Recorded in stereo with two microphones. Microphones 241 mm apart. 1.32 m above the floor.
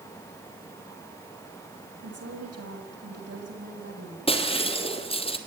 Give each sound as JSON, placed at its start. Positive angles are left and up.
{"t": 2.0, "sound": "a woman speaking", "side_deg": -85, "distance_m": 7.0}
{"t": 4.3, "sound": "breaking glass", "side_deg": 25, "distance_m": 3.0}